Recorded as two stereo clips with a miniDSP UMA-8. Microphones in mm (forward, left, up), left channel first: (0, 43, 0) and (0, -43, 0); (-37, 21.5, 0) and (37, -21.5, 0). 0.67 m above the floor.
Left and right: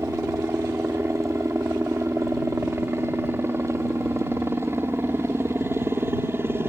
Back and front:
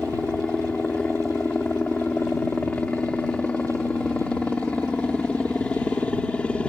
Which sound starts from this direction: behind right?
A helicopter, at 0.0 s.